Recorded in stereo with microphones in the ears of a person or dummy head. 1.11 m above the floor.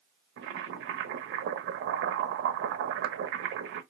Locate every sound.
0.4 s boiling: 70° right (ahead or behind), 0.6 m